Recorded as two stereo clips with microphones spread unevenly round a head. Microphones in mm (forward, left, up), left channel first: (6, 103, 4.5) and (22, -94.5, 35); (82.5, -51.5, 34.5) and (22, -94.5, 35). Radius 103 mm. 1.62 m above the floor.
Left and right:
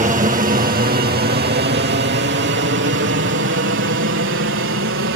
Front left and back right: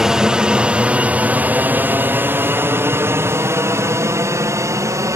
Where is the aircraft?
70° right; by 5.2 s 105° right.